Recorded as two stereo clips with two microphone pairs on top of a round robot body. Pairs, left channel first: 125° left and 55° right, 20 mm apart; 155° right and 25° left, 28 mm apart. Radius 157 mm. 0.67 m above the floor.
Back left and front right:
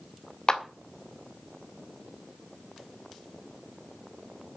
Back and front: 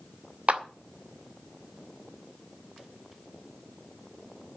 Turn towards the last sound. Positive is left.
turn(degrees=65)